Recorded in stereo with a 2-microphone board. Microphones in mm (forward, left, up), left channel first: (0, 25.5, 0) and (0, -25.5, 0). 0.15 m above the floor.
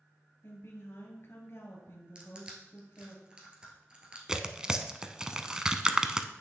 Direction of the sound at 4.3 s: 15° right (ahead or behind).